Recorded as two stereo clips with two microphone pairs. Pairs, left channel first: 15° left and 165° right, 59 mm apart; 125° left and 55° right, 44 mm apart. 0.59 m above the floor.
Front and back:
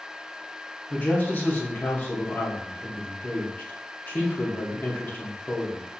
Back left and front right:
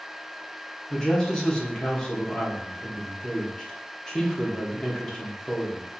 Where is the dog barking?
No dog barking in this recording.